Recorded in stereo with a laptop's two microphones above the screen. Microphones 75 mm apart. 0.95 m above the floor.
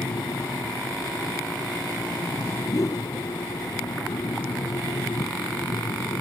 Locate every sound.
0.0 s a fan: 80° left
2.7 s a whoosh: 50° left (ahead or behind)